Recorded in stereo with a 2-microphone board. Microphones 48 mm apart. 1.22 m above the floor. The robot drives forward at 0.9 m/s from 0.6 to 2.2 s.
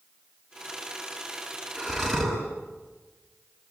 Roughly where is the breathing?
Centre.